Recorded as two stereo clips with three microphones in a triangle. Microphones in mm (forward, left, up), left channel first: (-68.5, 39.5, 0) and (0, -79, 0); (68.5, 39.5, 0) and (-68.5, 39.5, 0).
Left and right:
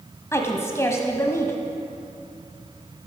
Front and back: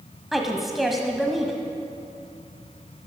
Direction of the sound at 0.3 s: 90° left.